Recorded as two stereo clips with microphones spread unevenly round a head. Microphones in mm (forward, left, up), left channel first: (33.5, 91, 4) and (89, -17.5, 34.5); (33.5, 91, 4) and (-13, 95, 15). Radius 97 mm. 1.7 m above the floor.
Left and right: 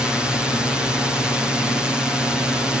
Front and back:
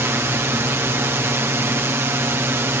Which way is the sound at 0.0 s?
155° right.